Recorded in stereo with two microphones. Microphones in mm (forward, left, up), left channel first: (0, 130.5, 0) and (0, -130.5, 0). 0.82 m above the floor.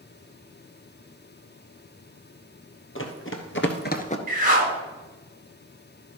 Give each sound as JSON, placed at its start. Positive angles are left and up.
{"t": 3.0, "sound": "running footsteps", "side_deg": 50, "distance_m": 1.6}
{"t": 4.3, "sound": "a whoosh", "side_deg": -30, "distance_m": 1.9}